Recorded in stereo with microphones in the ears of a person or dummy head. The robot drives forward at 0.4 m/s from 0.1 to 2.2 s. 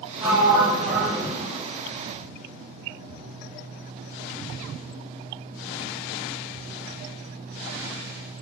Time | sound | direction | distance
0.2 | a sliding door | 10° right (ahead or behind) | 1.0 m